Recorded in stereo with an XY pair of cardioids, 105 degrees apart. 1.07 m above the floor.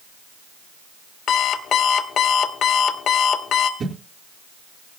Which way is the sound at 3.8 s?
45° right.